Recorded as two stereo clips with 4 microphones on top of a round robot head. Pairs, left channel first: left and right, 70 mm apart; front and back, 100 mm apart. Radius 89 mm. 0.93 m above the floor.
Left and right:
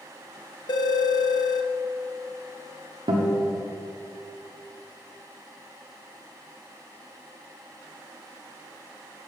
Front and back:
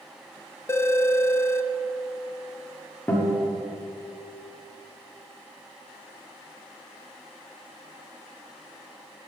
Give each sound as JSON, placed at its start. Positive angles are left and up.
{"t": 0.7, "sound": "a phone ringing", "azimuth_deg": 65, "distance_m": 0.6}
{"t": 3.1, "sound": "a guitar", "azimuth_deg": -75, "distance_m": 1.2}